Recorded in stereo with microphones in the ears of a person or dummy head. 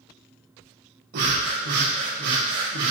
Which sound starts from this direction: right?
Breathing, at 1.1 s.